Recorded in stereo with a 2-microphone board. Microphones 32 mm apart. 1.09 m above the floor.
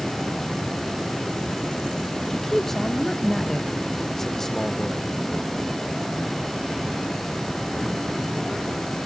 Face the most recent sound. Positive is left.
turn(degrees=10)  # may be behind; listen again after turning